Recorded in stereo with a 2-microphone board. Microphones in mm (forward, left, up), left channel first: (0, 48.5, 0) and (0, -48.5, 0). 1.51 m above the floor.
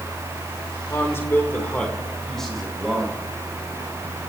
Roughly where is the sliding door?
I don't hear a sliding door.